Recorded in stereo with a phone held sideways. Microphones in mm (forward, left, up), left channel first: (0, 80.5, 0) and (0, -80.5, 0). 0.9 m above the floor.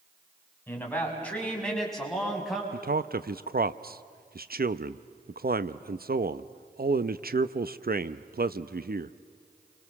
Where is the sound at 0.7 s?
10° left (ahead or behind), 6 m; by 2.6 s centre (ahead or behind), 6 m.